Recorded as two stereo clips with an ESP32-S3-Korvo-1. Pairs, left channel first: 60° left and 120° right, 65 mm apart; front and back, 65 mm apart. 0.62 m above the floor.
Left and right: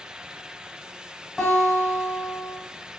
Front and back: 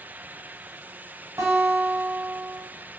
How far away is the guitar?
About 1.1 m.